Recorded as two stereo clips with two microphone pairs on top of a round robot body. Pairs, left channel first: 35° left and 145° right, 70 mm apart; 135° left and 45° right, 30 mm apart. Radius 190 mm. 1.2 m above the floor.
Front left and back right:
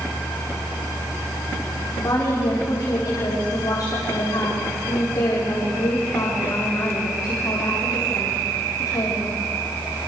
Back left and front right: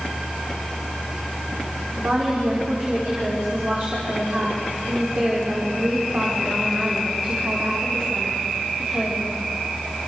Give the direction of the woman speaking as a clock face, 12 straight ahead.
12 o'clock.